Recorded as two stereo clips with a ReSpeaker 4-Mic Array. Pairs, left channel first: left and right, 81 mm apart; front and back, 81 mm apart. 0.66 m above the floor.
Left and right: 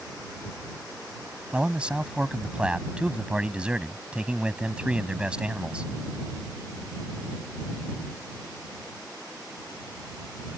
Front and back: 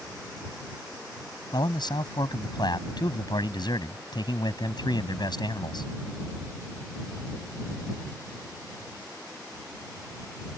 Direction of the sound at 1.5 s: 15° right.